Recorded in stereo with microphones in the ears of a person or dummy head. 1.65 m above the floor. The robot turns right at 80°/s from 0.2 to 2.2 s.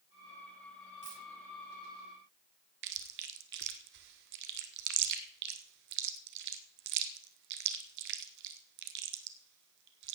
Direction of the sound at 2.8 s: 65° right (ahead or behind).